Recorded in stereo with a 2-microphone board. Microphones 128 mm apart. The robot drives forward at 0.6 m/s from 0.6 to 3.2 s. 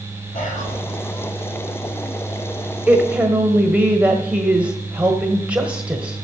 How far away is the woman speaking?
About 1.1 m.